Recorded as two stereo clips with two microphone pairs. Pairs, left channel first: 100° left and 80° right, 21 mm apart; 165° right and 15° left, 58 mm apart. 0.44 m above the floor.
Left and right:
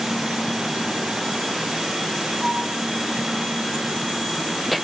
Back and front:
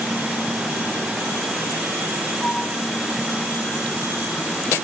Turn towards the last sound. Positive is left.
turn(degrees=-120)